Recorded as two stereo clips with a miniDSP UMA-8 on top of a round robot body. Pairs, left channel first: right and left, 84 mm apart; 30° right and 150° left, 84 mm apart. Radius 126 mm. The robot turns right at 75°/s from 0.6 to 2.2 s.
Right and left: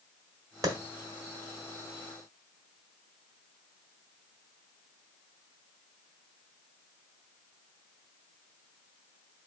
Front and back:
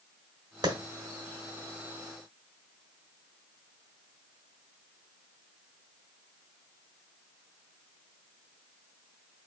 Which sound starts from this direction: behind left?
A clap, at 0.6 s.